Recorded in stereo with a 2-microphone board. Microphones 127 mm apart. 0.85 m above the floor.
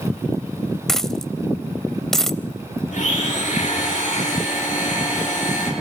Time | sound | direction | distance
0.9 | a dropped coin | 5° left (ahead or behind) | 0.7 m
2.9 | a blender | 80° left | 7 m